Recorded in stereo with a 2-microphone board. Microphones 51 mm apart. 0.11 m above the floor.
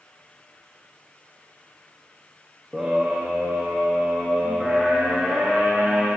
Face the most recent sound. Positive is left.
turn(degrees=0)  # may be behind; listen again after turning